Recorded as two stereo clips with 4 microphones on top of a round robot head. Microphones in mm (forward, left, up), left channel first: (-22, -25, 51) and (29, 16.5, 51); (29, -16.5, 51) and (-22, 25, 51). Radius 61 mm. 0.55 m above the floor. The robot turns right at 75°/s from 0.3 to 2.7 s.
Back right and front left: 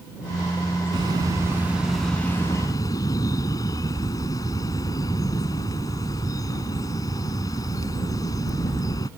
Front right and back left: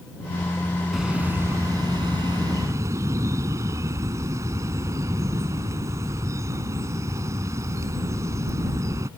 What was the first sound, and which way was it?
A bird, 50° left.